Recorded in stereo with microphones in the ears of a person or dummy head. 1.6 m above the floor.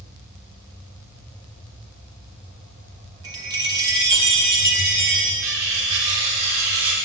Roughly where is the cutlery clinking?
Right.